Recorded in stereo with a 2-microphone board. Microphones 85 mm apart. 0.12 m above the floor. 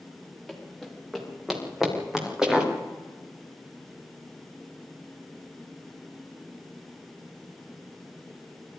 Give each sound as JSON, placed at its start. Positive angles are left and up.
{"t": 0.5, "sound": "running footsteps", "side_deg": 0, "distance_m": 7.0}